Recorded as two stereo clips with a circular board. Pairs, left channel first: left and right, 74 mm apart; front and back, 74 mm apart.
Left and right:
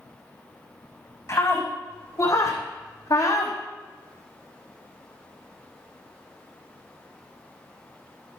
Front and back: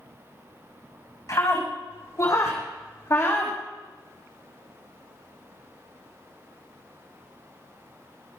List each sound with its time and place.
1.3 s a scream: 40° left, 6.5 m; by 3.6 s 55° left, 5 m